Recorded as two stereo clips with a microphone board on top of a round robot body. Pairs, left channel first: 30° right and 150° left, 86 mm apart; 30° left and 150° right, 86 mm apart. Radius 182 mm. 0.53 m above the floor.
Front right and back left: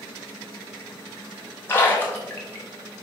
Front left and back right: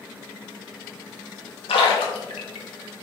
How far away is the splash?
About 0.7 m.